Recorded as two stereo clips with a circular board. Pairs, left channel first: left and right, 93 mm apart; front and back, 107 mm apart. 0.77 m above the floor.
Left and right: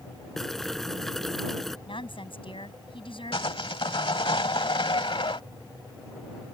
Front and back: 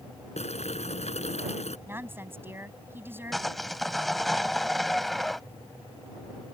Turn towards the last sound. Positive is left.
turn(degrees=90)